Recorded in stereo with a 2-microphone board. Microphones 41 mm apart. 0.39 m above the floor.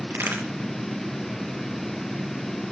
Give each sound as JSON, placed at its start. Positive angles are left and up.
{"t": 0.1, "sound": "a crack", "side_deg": -80, "distance_m": 7.5}